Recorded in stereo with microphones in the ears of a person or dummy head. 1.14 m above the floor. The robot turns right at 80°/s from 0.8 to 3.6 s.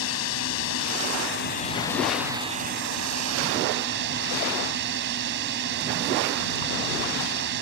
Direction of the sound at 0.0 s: 75° left.